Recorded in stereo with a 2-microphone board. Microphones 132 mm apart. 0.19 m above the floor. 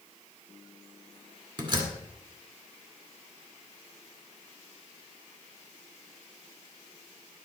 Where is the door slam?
35° right (ahead or behind), 2 m.